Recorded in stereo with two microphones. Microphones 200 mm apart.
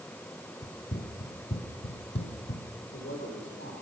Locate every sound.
0.6 s running footsteps: 40° left (ahead or behind), 2.5 m; by 2.7 s 60° left (ahead or behind), 2.5 m
2.8 s a man speaking: 70° left (ahead or behind), 4 m